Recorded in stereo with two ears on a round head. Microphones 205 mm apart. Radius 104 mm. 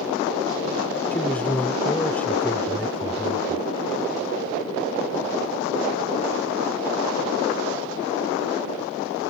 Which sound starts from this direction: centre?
A man speaking, at 1.1 s.